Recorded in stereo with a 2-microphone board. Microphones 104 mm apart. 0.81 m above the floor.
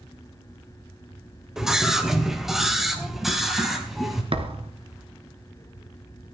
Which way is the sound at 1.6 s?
5° right (ahead or behind).